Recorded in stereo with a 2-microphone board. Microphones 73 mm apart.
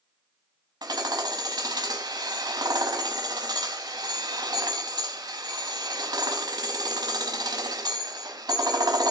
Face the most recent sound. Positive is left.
turn(degrees=-65)  # may be behind; listen again after turning